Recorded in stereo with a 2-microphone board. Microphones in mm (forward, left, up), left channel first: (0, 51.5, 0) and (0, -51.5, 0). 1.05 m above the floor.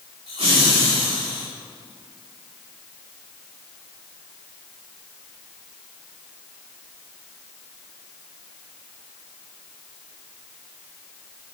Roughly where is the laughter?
Right.